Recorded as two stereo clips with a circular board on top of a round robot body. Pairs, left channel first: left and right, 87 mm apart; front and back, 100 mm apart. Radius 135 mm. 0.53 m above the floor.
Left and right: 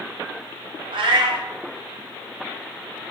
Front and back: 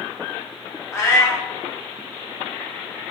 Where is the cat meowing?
65° right, 0.9 m.